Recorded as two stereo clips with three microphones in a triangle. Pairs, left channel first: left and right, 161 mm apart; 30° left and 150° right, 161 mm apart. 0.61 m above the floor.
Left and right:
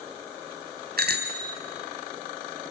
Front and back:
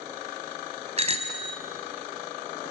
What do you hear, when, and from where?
1.0 s a bicycle bell: 100° right, 3 m